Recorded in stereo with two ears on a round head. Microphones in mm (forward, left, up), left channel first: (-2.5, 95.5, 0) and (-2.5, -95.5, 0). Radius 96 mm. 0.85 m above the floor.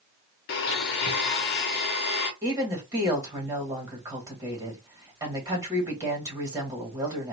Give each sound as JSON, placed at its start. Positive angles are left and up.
{"t": 0.5, "sound": "a blender", "side_deg": 50, "distance_m": 0.9}
{"t": 2.4, "sound": "a woman speaking", "side_deg": -20, "distance_m": 1.6}